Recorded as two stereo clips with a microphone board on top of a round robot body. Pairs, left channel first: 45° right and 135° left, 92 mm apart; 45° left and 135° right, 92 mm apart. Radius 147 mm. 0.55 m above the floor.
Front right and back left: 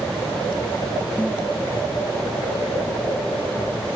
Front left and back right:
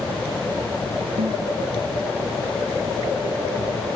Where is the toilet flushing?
120° right.